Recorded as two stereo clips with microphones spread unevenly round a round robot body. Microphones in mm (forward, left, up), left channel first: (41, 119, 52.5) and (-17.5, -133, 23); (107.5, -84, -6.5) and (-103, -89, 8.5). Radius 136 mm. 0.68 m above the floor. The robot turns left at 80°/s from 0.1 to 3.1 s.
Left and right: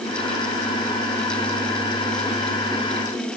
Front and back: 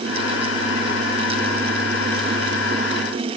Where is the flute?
I don't hear a flute.